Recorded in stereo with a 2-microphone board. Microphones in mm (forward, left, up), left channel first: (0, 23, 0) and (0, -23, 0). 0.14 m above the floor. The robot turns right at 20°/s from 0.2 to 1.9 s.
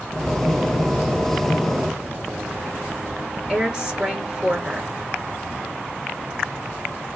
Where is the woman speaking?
20° right (ahead or behind), 2 m.